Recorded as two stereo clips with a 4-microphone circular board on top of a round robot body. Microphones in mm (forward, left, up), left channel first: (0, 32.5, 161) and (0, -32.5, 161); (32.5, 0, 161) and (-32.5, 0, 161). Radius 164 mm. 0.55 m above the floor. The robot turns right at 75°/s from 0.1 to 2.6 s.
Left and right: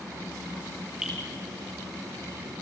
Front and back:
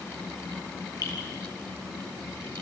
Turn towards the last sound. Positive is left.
turn(degrees=110)